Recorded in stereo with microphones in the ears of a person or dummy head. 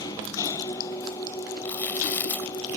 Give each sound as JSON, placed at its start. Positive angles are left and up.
{"t": 0.0, "sound": "an engine running", "side_deg": 25}
{"t": 1.6, "sound": "chewing", "side_deg": 15}